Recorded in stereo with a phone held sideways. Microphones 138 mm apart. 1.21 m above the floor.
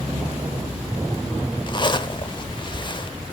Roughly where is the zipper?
Left.